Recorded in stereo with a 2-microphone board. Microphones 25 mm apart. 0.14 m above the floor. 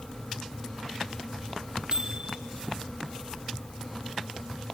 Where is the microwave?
35° right (ahead or behind), 4 m.